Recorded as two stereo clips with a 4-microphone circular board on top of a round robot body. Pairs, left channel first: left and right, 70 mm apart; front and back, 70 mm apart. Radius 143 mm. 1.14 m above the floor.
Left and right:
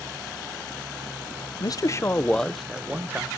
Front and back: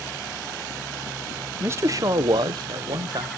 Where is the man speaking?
120° left, 0.8 m; by 3.3 s 155° right, 1.2 m.